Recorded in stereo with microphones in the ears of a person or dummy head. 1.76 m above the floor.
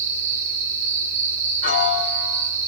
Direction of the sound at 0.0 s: 65° right (ahead or behind).